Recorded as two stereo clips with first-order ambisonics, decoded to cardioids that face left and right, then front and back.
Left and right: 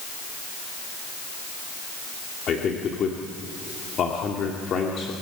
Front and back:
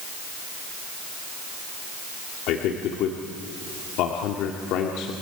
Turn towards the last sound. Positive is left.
turn(degrees=30)